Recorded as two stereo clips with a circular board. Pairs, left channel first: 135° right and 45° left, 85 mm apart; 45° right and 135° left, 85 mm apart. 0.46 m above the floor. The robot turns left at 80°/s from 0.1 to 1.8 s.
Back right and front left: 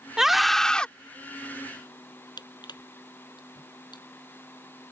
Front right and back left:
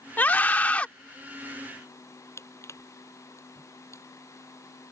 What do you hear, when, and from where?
0.2 s a scream: 30° right; by 0.9 s 85° right
2.4 s crushing: 100° right